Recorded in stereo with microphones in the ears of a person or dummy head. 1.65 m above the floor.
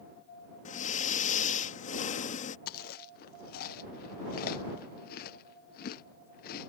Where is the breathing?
45° left (ahead or behind).